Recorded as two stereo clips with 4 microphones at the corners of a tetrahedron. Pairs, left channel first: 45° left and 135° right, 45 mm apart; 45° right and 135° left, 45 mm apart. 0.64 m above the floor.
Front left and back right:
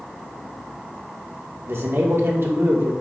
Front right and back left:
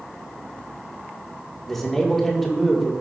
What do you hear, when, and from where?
1.7 s a man speaking: 130° right, 1.6 m